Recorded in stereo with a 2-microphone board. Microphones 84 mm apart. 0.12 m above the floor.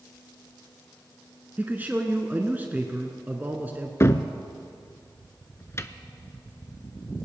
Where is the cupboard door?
35° left (ahead or behind), 0.6 m.